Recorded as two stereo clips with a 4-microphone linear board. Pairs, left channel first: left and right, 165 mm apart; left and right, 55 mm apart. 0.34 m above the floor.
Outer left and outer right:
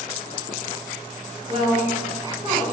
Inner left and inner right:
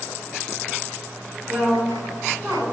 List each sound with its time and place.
1.5 s a woman speaking: 30° right (ahead or behind), 1.8 m